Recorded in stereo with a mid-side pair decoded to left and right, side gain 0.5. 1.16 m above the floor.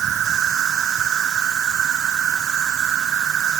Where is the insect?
55° right.